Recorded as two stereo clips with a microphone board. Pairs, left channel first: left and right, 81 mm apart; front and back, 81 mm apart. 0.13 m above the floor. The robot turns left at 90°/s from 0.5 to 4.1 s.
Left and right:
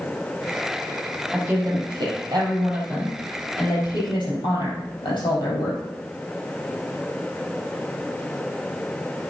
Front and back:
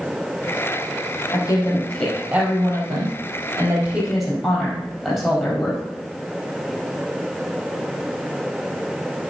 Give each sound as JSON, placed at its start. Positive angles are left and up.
{"t": 1.3, "sound": "a woman speaking", "azimuth_deg": -15, "distance_m": 4.0}